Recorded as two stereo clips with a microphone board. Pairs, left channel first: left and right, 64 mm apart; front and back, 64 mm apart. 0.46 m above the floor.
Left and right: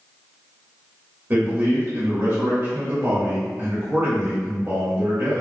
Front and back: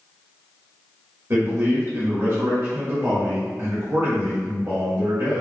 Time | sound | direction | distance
1.3 | a man speaking | 140° right | 1.4 m